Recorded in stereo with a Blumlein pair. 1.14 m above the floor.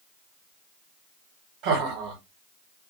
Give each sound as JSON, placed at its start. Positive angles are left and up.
{"t": 1.6, "sound": "laughter", "azimuth_deg": -30, "distance_m": 1.2}